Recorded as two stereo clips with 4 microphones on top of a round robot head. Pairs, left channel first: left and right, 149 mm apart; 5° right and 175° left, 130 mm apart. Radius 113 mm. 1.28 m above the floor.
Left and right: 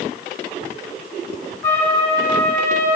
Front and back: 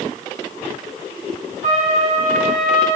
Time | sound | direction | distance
1.6 | a trumpet | 160° left | 4.5 m